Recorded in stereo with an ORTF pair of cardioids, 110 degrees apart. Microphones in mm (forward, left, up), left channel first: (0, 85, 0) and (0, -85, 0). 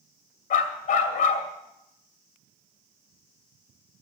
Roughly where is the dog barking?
Ahead left.